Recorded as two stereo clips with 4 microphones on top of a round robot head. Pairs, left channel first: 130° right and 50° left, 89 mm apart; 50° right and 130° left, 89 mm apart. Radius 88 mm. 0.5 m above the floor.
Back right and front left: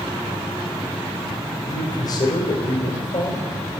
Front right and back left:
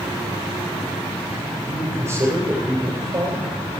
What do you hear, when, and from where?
1.7 s a man speaking: 170° right, 3.5 m